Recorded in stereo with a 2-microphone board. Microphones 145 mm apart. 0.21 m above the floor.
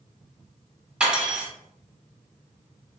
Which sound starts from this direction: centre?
Cutlery clinking, at 1.0 s.